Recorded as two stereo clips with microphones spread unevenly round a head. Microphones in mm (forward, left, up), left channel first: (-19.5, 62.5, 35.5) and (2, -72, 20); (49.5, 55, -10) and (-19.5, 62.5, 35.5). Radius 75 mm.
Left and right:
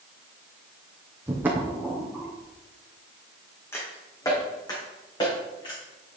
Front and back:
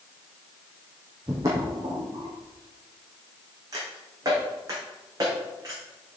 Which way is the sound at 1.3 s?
160° right.